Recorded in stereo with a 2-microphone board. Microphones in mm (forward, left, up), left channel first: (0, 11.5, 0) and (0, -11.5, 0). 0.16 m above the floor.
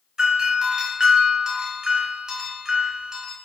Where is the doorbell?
30° right (ahead or behind), 2.5 m.